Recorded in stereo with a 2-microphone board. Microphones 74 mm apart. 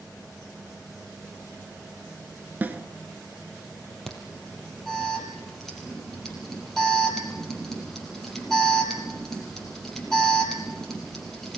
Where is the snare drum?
25° right (ahead or behind), 1.4 m.